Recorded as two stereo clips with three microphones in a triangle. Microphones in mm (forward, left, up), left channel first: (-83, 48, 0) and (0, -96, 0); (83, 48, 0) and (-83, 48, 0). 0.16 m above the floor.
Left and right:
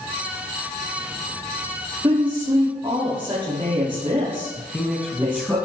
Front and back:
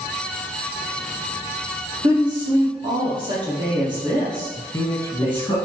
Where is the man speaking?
35° left, 1.1 m.